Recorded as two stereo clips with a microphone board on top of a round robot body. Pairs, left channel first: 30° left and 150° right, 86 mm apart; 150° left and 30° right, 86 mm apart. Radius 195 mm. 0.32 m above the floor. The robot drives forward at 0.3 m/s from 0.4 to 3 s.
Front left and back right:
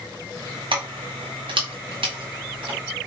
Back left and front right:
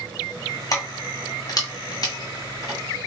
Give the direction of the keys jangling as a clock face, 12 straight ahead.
5 o'clock.